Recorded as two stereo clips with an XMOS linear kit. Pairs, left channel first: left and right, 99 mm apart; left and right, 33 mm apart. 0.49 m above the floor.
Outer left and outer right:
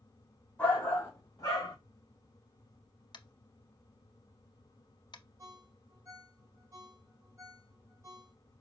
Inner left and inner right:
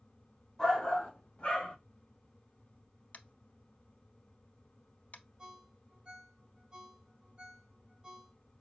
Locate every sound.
0.6 s a shout: 20° left (ahead or behind), 2 m; by 1.8 s 40° left (ahead or behind), 2.5 m
3.1 s tapping: 55° left (ahead or behind), 0.6 m
5.4 s a ringtone: 35° right (ahead or behind), 1.3 m